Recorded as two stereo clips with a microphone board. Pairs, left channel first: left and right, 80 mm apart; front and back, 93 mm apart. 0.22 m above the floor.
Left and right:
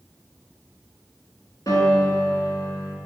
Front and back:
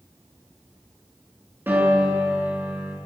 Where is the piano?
120° left, 3 m.